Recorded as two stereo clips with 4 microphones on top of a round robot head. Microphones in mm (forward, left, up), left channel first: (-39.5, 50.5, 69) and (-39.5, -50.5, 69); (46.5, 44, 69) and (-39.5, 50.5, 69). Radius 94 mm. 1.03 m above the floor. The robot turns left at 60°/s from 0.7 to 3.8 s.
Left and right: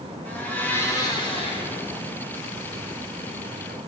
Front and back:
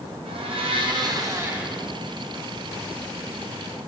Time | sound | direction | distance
0.2 | a blender | 160° left | 2 m